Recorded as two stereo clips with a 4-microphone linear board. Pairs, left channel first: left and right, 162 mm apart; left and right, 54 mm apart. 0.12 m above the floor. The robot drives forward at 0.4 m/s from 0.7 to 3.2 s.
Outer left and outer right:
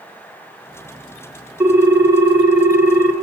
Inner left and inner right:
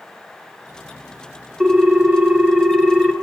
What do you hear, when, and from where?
1.6 s a ringtone: 10° right (ahead or behind), 1.1 m; by 3.1 s 15° right (ahead or behind), 0.6 m